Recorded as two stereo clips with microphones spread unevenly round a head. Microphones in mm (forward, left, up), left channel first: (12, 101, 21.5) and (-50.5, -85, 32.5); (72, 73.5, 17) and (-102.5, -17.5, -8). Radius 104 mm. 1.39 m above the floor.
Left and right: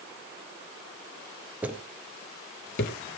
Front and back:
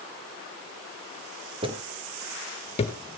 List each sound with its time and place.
1.6 s footsteps: 160° right, 1.4 m; by 3.0 s 55° left, 1.8 m